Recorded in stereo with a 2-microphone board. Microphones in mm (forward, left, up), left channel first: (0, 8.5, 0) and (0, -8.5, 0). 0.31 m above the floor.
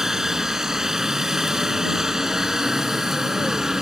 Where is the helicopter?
30° right (ahead or behind); by 3.8 s 35° right (ahead or behind).